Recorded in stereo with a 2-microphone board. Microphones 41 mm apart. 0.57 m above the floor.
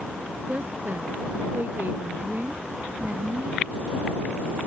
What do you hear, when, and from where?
0.5 s a woman speaking: 50° right (ahead or behind); by 3.6 s 45° right (ahead or behind)